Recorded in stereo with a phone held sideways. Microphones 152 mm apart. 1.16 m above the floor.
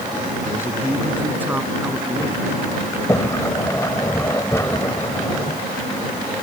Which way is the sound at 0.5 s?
10° right (ahead or behind).